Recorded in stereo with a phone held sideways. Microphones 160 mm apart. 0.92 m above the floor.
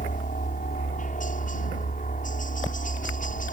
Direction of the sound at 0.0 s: 60° left (ahead or behind).